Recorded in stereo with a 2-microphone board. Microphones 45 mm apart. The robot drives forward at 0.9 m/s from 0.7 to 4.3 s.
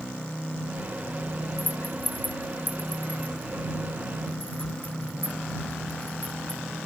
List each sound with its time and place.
1.6 s a rattle: 45° left (ahead or behind); by 6.6 s 30° left (ahead or behind)